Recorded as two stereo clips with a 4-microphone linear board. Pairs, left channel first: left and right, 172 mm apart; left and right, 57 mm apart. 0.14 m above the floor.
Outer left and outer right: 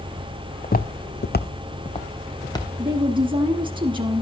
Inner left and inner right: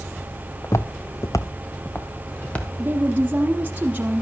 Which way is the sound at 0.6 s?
50° left (ahead or behind).